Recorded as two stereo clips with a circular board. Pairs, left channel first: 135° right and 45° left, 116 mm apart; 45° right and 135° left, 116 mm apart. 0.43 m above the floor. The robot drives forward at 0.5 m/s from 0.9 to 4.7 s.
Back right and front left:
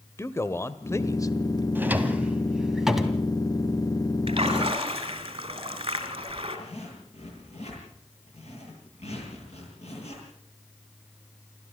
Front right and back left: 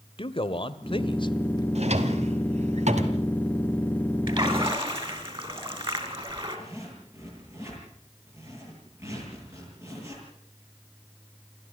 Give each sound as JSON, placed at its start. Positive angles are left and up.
{"t": 0.2, "sound": "a man speaking", "azimuth_deg": -75, "distance_m": 1.3}
{"t": 1.8, "sound": "a drawer", "azimuth_deg": 115, "distance_m": 1.8}
{"t": 4.3, "sound": "a splash", "azimuth_deg": 85, "distance_m": 3.0}
{"t": 6.5, "sound": "a zipper", "azimuth_deg": -160, "distance_m": 9.5}